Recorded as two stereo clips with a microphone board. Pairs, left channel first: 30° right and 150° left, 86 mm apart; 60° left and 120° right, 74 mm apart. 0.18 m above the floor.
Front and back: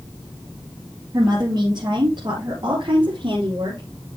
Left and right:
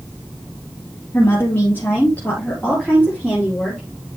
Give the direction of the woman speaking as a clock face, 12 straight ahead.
8 o'clock.